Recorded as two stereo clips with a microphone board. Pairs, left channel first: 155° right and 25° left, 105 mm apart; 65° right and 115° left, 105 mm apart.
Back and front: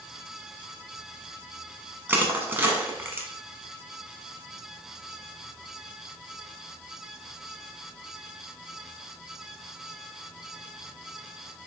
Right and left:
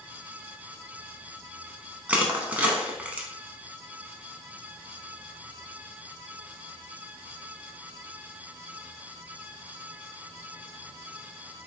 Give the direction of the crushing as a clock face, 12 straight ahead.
10 o'clock.